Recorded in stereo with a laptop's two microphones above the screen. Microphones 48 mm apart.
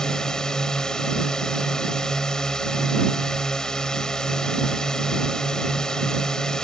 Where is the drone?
15° left (ahead or behind).